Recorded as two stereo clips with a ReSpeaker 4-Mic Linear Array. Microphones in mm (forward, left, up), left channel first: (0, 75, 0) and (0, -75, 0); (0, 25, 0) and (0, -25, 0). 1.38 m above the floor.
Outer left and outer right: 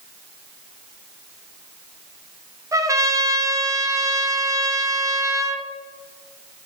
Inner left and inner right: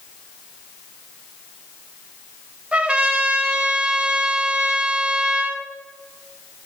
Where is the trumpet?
20° right (ahead or behind), 0.5 m.